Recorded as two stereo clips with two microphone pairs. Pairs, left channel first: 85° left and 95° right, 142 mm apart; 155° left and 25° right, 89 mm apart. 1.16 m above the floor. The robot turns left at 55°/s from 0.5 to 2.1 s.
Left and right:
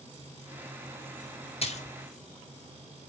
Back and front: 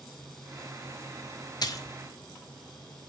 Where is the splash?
125° left, 0.6 m; by 2.0 s 105° left, 0.6 m.